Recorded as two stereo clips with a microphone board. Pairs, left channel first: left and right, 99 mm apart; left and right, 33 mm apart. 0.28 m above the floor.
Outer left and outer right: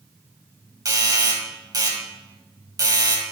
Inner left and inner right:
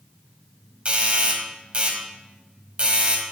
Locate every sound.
0.8 s a doorbell: 40° right (ahead or behind), 2 m